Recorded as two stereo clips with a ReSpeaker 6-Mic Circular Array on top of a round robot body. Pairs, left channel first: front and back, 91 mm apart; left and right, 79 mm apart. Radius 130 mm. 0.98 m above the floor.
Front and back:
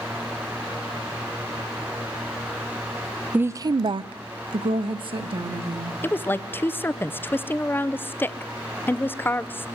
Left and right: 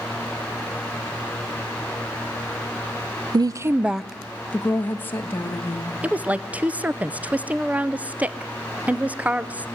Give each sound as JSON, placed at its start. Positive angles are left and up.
{"t": 3.3, "sound": "a woman speaking", "azimuth_deg": -110, "distance_m": 0.5}
{"t": 6.0, "sound": "a woman speaking", "azimuth_deg": -40, "distance_m": 0.7}